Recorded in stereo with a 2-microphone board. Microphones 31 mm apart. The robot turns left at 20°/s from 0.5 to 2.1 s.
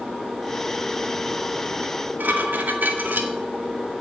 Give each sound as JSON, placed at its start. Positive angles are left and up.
{"t": 1.8, "sound": "dishes clattering", "side_deg": -75, "distance_m": 2.0}